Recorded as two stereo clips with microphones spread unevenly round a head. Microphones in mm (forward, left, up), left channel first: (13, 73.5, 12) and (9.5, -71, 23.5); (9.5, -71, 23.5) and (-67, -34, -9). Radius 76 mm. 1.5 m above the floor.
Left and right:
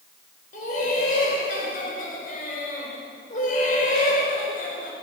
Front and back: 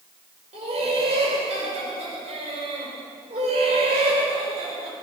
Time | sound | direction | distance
0.5 | laughter | 130° left | 5 m